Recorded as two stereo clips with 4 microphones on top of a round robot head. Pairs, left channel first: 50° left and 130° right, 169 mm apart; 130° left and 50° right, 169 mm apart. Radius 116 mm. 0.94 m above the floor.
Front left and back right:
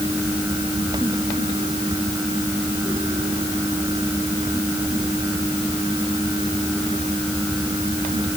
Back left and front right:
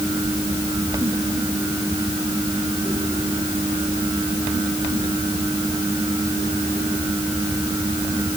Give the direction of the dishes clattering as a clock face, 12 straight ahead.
No dishes clattering in this recording.